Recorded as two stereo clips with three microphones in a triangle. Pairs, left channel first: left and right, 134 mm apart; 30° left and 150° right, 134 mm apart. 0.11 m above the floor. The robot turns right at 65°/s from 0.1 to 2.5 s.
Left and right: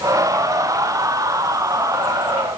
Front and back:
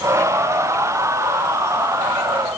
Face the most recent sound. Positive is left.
No sound to turn to.